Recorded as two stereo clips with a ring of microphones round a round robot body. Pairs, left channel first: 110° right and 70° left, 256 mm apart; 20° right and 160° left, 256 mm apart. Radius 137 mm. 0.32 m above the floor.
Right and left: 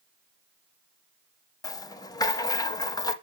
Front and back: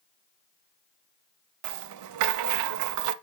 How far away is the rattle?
About 0.6 m.